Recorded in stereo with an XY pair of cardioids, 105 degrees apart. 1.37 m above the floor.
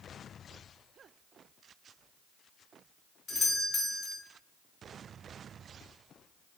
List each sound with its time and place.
3.3 s a doorbell: 35° left, 0.7 m